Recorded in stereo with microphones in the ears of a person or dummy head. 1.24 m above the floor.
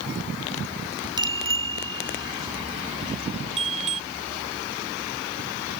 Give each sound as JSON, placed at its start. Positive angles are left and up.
{"t": 1.2, "sound": "a bicycle bell", "side_deg": -20}